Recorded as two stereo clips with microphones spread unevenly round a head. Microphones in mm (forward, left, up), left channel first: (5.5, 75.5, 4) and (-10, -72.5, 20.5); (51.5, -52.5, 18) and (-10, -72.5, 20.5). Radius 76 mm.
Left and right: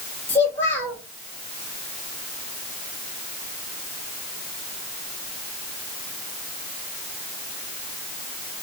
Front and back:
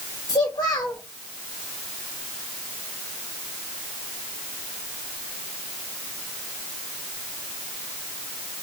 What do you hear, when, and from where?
0.3 s a child speaking: 5° left, 2 m